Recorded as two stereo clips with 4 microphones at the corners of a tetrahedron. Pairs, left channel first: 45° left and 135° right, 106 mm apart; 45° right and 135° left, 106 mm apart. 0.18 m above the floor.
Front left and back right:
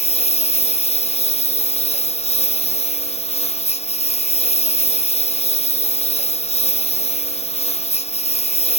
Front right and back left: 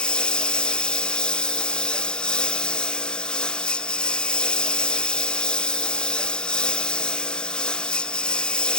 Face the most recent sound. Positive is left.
turn(degrees=35)